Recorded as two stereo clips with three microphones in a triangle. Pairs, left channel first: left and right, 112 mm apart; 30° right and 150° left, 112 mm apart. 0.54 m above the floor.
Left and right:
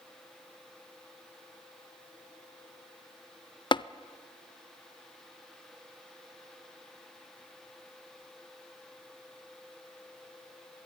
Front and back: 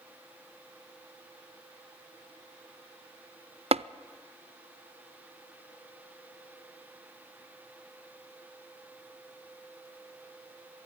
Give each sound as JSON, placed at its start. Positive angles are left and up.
{"t": 3.7, "sound": "tapping", "azimuth_deg": 130, "distance_m": 0.5}